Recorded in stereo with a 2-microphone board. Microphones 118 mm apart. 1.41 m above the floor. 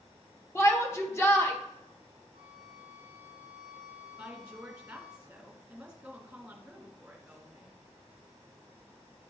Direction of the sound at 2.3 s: 80° left.